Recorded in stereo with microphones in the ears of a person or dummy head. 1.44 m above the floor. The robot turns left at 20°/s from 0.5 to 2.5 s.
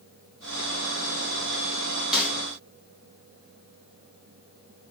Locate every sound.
2.1 s a snare drum: 5° right (ahead or behind), 1.4 m; by 2.4 s 10° right (ahead or behind), 1.4 m